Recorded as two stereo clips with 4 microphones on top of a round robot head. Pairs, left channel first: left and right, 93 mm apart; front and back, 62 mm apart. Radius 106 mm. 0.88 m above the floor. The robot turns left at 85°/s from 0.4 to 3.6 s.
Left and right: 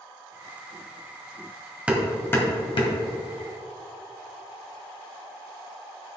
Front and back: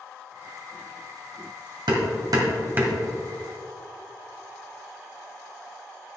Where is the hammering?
165° right, 1.8 m; by 3.0 s 100° left, 1.8 m.